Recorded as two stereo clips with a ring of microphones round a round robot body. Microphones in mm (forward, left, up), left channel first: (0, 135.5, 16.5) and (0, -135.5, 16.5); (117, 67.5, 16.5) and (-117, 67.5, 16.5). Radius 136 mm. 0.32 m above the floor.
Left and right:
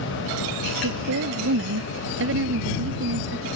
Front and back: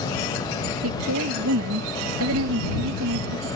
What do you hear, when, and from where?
0.8 s a woman speaking: 135° right